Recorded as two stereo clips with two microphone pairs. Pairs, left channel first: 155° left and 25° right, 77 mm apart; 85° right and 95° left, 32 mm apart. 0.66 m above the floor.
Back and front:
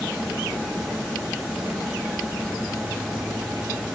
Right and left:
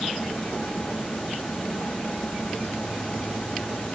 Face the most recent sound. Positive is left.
No sound to turn to.